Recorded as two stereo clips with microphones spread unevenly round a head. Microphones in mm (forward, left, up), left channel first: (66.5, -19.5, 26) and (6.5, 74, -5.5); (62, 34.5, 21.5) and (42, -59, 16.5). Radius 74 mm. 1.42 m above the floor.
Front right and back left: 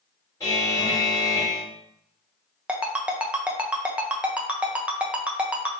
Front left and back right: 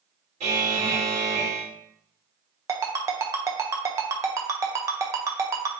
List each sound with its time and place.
0.4 s a buzzer: 125° right, 2.5 m
2.7 s a ringtone: 135° right, 0.5 m